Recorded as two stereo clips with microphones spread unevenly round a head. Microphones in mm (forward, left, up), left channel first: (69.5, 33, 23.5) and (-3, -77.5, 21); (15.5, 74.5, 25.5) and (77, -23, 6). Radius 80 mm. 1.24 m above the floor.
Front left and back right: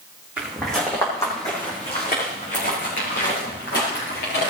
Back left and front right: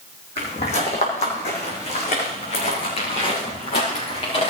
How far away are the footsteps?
About 2.5 m.